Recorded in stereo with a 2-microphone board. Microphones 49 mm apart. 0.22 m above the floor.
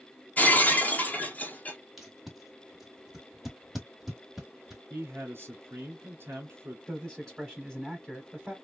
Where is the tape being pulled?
5° right (ahead or behind), 1.3 m.